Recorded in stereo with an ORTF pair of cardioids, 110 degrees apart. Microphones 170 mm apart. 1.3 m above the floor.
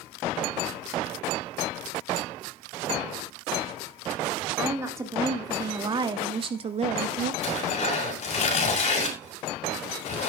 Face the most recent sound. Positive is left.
turn(degrees=45)